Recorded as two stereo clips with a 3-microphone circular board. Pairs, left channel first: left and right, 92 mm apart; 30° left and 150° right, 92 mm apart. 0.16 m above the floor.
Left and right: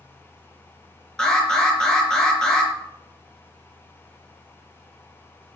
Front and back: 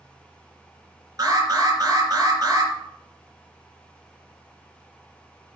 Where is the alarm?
175° left, 4 m.